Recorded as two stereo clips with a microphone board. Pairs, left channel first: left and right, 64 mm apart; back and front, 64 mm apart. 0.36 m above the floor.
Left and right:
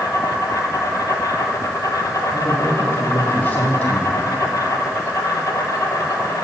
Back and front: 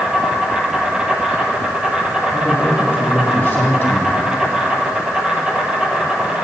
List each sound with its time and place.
0.0 s an insect: 75° left, 1.0 m
2.3 s a man speaking: 130° left, 1.9 m